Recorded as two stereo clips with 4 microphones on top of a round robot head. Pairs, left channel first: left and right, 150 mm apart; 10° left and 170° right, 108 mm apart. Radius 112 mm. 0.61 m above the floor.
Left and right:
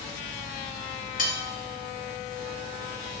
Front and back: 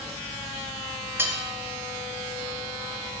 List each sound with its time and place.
1.2 s cutlery clinking: 120° left, 0.7 m